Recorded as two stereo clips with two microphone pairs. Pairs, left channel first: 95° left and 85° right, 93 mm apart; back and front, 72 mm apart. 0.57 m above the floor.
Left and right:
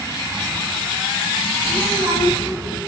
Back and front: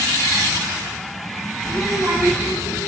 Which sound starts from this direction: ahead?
A child speaking, at 1.6 s.